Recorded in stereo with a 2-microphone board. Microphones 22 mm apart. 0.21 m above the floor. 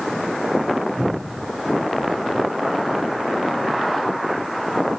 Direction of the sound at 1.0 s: 35° right (ahead or behind).